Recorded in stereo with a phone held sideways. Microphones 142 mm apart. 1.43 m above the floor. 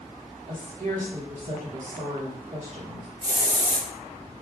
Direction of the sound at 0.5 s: 65° right (ahead or behind).